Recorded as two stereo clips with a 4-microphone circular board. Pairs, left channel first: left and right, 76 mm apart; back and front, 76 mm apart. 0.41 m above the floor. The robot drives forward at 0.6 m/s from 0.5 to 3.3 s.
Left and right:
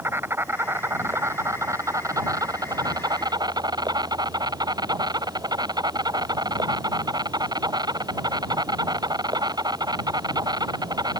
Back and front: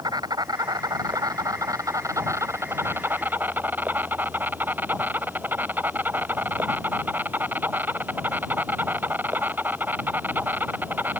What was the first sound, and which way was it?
An insect, 30° right.